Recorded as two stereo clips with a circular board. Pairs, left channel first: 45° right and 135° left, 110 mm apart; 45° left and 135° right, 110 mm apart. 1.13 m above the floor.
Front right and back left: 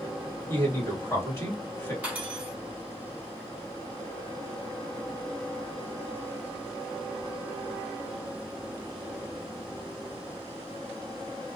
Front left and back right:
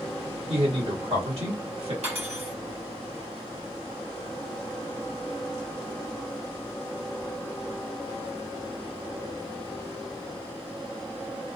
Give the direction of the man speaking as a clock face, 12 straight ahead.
4 o'clock.